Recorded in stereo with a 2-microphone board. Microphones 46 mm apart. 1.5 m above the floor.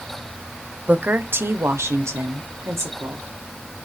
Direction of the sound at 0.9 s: 30° right (ahead or behind).